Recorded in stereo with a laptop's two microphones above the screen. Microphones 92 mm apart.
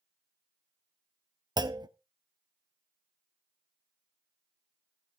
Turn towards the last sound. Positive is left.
turn(degrees=-50)  # may be behind; listen again after turning